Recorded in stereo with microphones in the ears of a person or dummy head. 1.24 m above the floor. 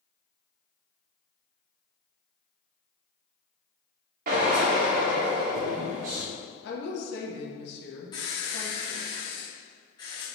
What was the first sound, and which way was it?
A drill, 55° right (ahead or behind).